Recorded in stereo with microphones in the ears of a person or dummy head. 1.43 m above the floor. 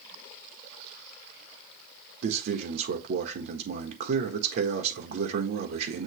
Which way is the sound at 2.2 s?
60° right (ahead or behind).